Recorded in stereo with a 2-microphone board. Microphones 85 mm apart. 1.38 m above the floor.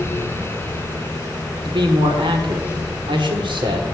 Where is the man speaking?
75° right (ahead or behind), 1.4 m.